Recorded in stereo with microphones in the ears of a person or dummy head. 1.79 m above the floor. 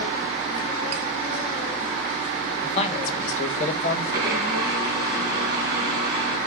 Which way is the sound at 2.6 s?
35° left (ahead or behind).